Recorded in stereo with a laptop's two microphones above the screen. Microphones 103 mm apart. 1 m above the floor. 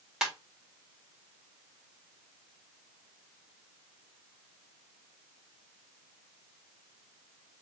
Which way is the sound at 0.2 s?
5° right (ahead or behind).